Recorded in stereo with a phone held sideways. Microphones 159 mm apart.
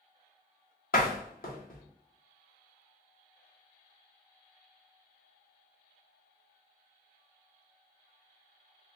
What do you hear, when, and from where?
0.9 s a door slam: 65° left (ahead or behind), 1.0 m